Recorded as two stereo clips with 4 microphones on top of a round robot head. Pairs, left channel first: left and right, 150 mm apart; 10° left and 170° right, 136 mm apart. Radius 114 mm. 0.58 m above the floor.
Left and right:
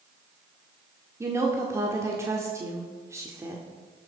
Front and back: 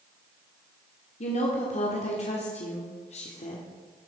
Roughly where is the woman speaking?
Ahead.